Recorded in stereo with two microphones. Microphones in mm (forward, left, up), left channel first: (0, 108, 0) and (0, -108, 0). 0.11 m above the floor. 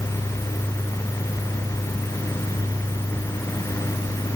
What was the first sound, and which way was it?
Only background noise.